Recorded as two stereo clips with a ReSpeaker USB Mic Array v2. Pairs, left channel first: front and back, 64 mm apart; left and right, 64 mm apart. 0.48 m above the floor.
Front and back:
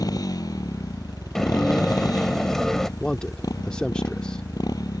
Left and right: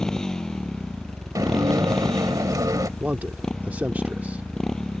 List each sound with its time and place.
0.0 s a motorcycle: 10° left
1.4 s dishes clattering: 85° right
3.0 s a man speaking: 60° right